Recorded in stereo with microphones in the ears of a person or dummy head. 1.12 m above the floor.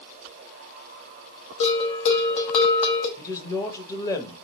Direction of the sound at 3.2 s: 25° left (ahead or behind).